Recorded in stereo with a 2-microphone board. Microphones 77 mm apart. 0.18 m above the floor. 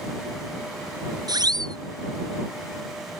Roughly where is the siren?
Right.